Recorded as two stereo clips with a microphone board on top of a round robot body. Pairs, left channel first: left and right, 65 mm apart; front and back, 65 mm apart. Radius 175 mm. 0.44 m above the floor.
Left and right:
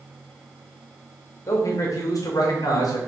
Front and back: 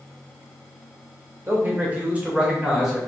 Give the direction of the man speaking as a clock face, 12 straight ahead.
8 o'clock.